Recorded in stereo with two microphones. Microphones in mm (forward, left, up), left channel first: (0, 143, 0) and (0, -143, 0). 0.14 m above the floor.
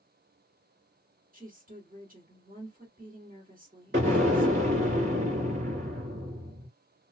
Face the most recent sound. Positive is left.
turn(degrees=-40)  # may be behind; listen again after turning